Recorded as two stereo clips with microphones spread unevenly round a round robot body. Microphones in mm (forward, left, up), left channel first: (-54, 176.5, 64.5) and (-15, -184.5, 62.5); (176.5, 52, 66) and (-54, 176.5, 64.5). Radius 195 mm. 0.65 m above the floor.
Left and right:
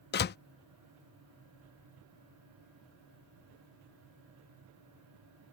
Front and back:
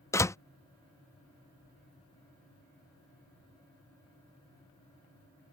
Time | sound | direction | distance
0.1 | a door slam | 50° left | ?